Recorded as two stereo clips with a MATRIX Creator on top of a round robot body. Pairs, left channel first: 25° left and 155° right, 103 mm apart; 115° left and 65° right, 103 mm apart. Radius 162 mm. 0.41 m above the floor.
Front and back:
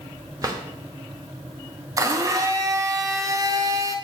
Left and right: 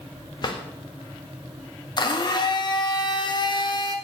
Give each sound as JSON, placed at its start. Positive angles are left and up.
{"t": 0.4, "sound": "a drawer", "azimuth_deg": 150, "distance_m": 1.1}
{"t": 2.0, "sound": "a blender", "azimuth_deg": 150, "distance_m": 0.9}